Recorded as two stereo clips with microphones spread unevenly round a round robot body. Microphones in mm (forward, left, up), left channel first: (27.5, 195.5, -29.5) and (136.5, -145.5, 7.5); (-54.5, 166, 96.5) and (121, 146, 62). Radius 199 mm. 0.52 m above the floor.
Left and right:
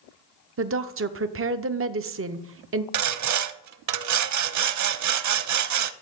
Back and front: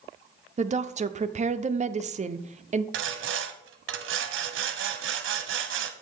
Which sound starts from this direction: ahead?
A woman speaking, at 0.6 s.